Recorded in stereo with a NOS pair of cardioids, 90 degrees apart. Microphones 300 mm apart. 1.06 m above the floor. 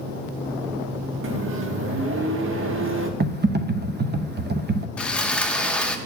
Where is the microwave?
45° right, 1.2 m.